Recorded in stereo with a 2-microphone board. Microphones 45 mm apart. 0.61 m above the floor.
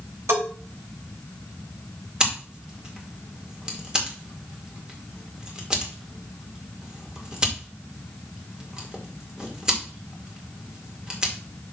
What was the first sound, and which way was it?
A bell, 80° right.